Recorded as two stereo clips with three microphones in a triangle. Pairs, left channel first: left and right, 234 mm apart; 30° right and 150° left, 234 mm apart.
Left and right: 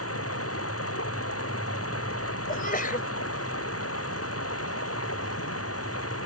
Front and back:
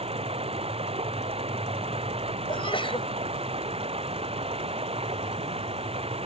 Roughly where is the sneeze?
Ahead left.